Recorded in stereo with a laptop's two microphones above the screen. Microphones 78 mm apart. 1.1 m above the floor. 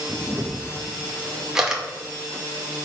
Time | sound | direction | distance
0.1 | a camera shutter | 10° right (ahead or behind) | 2 m